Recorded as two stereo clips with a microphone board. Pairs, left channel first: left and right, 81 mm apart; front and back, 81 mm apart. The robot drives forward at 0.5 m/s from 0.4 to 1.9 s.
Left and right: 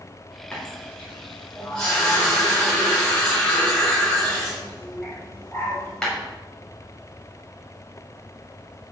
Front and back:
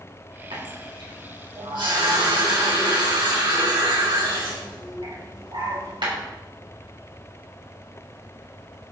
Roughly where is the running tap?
Behind.